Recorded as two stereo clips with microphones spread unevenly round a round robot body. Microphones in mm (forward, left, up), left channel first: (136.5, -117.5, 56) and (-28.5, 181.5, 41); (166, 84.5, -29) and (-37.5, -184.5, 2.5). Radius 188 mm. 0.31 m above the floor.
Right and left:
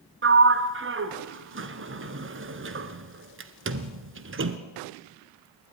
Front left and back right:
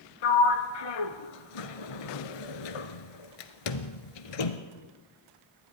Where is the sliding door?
65° left, 1.5 m.